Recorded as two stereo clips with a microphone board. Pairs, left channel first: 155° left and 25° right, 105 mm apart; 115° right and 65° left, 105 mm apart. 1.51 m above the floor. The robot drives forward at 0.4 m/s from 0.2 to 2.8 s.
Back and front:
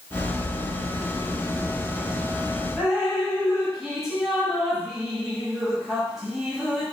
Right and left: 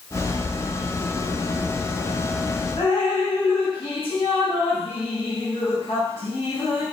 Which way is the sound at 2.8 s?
110° right.